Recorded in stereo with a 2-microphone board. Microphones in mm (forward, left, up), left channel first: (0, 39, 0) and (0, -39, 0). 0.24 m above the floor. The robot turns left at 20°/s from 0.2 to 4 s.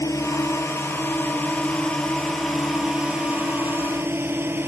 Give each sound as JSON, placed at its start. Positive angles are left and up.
{"t": 0.0, "sound": "a drone", "azimuth_deg": 45}